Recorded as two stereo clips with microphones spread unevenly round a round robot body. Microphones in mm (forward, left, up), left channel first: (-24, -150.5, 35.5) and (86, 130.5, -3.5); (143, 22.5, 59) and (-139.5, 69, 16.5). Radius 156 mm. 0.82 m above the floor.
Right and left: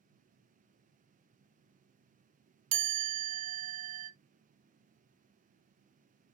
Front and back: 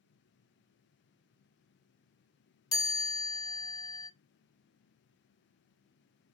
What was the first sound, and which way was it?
A chime, 70° left.